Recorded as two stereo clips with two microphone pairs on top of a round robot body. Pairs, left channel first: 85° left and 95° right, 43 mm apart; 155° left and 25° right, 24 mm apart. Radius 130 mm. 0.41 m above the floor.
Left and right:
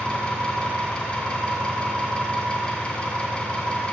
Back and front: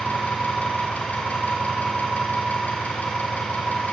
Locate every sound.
0.0 s an engine running: 150° left, 2.5 m